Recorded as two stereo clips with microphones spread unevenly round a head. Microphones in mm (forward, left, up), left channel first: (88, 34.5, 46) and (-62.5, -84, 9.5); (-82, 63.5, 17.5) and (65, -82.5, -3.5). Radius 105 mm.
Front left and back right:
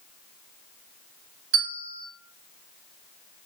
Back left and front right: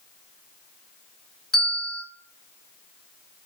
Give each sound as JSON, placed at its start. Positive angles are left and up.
{"t": 1.5, "sound": "a bell", "azimuth_deg": -140, "distance_m": 2.0}